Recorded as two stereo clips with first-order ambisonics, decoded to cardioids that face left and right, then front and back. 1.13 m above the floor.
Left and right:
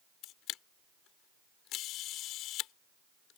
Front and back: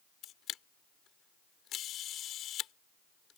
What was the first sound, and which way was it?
A camera shutter, 50° left.